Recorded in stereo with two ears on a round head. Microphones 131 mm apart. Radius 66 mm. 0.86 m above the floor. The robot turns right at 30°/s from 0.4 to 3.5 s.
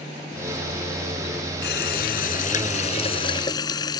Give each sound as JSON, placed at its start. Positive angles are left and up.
{"t": 1.6, "sound": "a running tap", "azimuth_deg": 95}